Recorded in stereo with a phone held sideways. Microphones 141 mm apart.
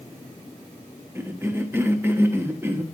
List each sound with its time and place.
1.1 s a cough: 15° right (ahead or behind), 0.8 m